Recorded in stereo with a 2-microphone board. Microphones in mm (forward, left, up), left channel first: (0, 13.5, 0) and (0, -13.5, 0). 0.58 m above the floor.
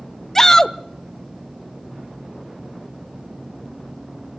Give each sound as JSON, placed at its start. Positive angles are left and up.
{"t": 0.3, "sound": "a shout", "side_deg": 15, "distance_m": 0.8}